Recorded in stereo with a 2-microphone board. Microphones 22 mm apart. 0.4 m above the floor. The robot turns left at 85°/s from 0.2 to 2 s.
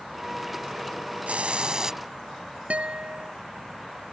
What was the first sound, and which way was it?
A hiss, 100° right.